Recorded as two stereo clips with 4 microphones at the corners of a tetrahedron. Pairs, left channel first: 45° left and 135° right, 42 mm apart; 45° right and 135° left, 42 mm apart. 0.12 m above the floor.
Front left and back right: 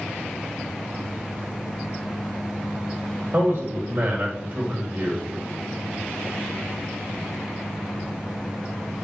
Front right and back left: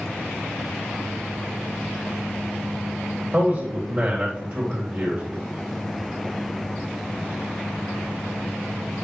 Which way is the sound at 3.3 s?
Straight behind.